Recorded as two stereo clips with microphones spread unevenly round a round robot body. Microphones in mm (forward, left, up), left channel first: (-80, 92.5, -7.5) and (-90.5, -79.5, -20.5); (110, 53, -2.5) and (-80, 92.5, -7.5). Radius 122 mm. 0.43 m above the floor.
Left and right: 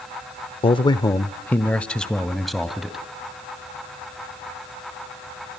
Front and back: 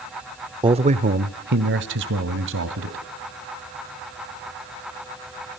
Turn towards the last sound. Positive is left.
turn(degrees=180)